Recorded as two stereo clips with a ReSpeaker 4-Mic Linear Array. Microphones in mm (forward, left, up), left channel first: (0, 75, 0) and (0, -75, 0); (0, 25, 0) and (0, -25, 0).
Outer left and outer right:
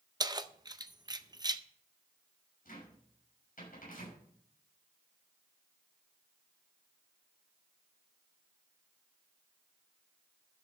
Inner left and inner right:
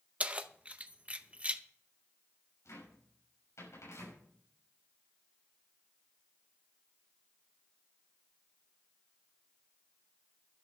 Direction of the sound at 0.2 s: 25° right (ahead or behind).